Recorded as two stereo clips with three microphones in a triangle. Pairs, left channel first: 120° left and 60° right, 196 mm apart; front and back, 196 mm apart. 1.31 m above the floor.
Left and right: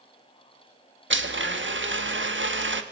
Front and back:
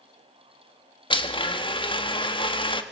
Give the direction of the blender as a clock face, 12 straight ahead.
2 o'clock.